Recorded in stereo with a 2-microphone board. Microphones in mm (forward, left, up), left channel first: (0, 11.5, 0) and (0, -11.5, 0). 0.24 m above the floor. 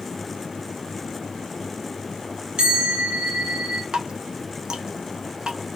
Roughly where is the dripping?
Right.